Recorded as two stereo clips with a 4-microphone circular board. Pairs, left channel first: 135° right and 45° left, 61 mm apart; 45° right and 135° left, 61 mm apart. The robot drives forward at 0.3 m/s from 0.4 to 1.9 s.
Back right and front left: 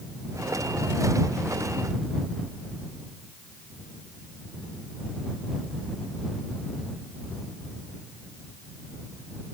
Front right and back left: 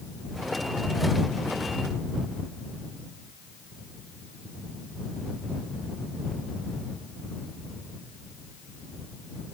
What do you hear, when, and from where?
Only background noise.